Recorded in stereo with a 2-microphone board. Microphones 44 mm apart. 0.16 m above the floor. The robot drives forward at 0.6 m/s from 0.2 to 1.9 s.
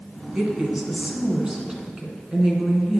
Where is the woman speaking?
20° right (ahead or behind), 1.7 m; by 3.0 s 15° right (ahead or behind), 2 m.